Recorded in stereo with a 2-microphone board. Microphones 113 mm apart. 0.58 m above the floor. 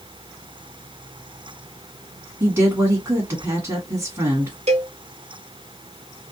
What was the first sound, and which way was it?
A woman speaking, 25° right (ahead or behind).